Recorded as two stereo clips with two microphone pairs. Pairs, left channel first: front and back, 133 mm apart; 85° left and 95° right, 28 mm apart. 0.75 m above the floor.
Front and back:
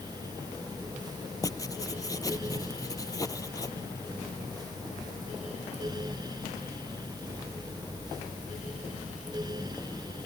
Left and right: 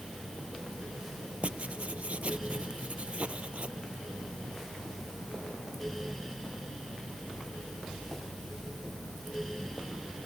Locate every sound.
1.4 s writing: 60° right